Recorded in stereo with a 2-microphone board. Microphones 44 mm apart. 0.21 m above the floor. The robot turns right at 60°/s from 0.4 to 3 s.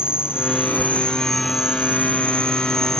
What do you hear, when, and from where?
0.0 s an insect: 120° left; by 3.0 s 85° right